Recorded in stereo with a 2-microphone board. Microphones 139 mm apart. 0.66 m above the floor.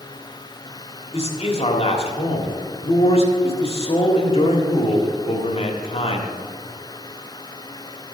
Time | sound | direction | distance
1.1 | a man speaking | 45° left (ahead or behind) | 1.7 m